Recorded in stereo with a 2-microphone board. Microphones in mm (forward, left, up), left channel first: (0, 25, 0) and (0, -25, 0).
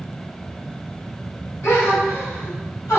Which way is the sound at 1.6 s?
65° left (ahead or behind).